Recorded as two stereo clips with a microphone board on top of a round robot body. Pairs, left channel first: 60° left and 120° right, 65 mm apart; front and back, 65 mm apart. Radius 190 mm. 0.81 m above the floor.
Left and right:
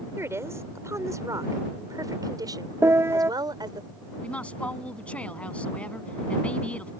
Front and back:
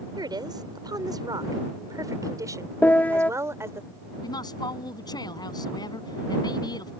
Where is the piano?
70° right.